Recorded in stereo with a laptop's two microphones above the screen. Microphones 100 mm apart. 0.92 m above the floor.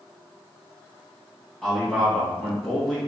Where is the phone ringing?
No phone ringing in this recording.